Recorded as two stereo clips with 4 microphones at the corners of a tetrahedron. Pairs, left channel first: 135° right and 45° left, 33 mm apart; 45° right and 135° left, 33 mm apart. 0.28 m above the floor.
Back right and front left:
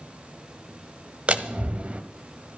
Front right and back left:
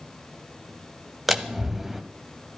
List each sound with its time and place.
1.3 s a door slam: 55° left, 1.3 m